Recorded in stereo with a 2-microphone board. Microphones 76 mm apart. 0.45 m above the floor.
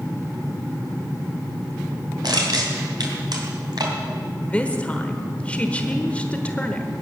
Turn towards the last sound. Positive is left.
turn(degrees=20)  # may be behind; listen again after turning